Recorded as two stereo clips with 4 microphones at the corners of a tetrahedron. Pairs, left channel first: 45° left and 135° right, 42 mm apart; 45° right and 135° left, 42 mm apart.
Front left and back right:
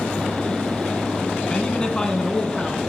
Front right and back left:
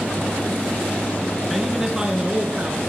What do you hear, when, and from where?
1.5 s a man speaking: 55° left, 1.6 m; by 2.8 s 120° left, 1.8 m